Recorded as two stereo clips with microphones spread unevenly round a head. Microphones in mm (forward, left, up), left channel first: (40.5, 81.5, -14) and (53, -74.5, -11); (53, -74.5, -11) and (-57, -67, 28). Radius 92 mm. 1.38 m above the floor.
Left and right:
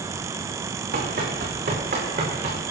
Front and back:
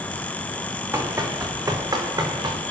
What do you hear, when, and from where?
0.9 s running footsteps: 125° right, 4 m; by 2.6 s 140° right, 4.5 m